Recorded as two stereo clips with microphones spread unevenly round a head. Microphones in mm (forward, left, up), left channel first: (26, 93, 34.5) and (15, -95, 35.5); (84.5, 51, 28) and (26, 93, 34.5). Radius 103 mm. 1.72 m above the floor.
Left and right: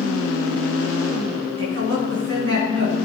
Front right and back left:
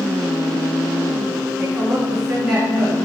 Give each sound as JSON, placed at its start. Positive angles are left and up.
{"t": 1.6, "sound": "a woman speaking", "azimuth_deg": -125, "distance_m": 4.0}